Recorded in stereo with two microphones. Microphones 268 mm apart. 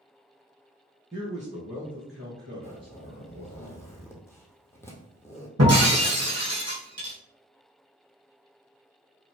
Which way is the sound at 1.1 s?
15° right (ahead or behind).